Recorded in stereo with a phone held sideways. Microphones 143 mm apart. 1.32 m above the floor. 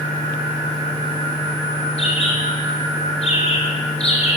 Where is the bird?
45° left (ahead or behind), 4 m.